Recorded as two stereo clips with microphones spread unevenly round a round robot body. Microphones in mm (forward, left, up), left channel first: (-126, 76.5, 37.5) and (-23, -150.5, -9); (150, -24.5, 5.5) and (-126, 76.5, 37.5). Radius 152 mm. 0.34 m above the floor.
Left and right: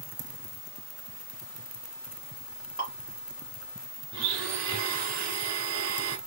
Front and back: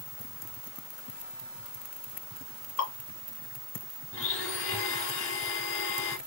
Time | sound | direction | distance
2.8 | dripping | 5° left | 1.8 m
4.1 | a blender | 70° right | 1.0 m